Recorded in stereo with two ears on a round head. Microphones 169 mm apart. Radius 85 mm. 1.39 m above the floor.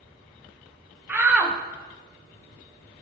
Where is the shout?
10° right (ahead or behind), 1.2 m.